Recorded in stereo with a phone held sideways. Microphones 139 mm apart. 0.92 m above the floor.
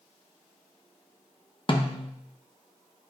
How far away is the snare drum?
About 0.8 m.